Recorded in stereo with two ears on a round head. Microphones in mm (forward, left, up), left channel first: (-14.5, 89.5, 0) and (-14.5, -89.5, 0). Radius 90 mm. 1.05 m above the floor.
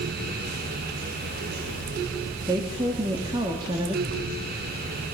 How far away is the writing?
About 3 m.